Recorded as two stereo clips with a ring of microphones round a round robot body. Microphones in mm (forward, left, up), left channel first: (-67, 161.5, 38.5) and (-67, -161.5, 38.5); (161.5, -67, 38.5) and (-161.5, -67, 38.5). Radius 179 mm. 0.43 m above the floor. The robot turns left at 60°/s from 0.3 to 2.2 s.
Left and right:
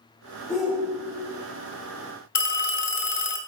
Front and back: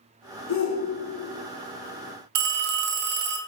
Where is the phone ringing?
150° left, 1.6 m.